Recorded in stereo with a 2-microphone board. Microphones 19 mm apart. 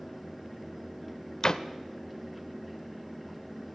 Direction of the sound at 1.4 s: 45° left (ahead or behind).